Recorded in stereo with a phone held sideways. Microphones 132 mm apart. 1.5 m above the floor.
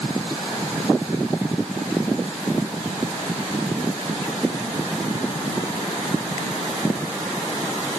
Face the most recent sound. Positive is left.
No sound to turn to.